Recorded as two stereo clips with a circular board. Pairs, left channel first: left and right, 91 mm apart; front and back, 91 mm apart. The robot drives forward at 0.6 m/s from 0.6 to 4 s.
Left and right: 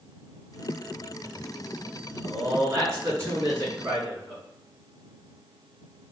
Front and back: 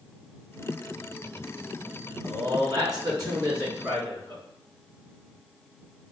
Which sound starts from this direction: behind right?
A man speaking, at 2.2 s.